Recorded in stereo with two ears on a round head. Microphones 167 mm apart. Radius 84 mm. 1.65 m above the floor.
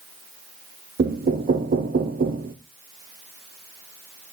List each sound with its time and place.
1.0 s knocking: 50° right (ahead or behind), 0.6 m